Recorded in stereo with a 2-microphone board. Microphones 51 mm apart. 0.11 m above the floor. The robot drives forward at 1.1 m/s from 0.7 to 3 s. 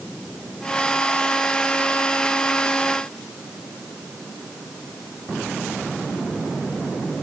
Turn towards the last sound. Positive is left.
No sound to turn to.